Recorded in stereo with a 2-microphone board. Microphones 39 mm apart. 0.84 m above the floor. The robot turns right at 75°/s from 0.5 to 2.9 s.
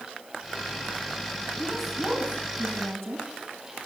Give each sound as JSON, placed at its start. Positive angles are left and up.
{"t": 1.6, "sound": "a woman speaking", "azimuth_deg": 165, "distance_m": 8.0}